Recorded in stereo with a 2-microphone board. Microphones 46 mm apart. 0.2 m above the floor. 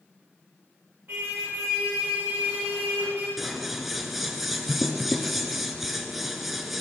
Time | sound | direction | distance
1.1 | a car horn | 50° right (ahead or behind) | 9 m
3.4 | scissors | 5° right (ahead or behind) | 2 m